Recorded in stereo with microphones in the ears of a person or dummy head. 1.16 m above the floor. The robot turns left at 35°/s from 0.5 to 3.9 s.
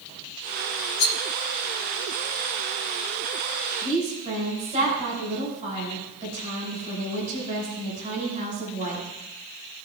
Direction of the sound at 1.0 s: 60° left (ahead or behind).